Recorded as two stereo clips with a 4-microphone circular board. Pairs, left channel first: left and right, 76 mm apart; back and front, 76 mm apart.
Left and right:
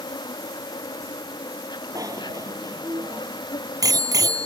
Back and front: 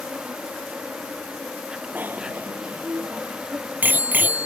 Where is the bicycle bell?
65° right.